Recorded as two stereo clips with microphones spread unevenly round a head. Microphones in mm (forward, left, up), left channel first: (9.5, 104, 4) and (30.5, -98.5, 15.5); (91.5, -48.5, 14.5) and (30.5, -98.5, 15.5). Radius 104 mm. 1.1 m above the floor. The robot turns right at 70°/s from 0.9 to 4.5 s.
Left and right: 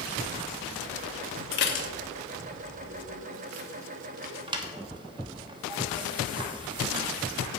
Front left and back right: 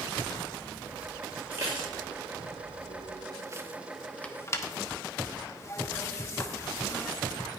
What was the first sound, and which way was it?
Dishes clattering, 135° left.